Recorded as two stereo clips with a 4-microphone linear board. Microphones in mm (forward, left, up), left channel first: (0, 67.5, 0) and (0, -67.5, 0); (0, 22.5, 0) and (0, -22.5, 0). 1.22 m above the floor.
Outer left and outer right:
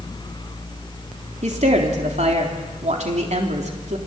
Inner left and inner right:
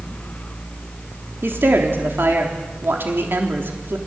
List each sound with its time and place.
1.4 s a woman speaking: 65° right (ahead or behind), 3.5 m